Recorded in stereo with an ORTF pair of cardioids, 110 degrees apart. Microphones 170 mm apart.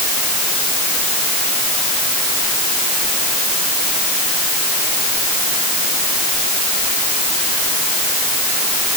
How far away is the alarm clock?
I don't hear an alarm clock.